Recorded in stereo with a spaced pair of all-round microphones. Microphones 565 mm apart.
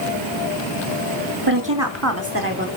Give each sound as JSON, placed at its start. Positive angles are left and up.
{"t": 1.5, "sound": "a woman speaking", "side_deg": -35, "distance_m": 2.5}